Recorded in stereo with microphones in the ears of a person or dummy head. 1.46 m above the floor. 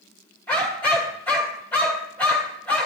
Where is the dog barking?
5° left (ahead or behind), 1.9 m.